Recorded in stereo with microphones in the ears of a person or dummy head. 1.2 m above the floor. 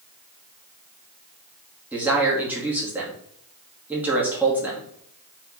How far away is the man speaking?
About 2.5 m.